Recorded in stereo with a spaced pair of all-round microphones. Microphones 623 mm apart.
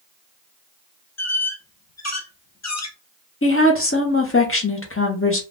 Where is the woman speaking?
20° left (ahead or behind), 0.8 m.